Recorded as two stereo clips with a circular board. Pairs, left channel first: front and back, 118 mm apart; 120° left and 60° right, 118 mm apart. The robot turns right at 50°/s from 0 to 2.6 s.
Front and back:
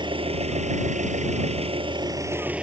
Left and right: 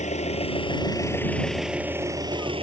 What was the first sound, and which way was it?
An engine running, 130° left.